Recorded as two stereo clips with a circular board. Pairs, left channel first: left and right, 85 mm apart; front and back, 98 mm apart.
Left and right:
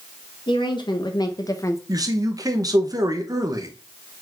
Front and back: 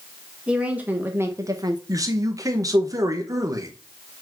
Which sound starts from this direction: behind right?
A man speaking, at 1.9 s.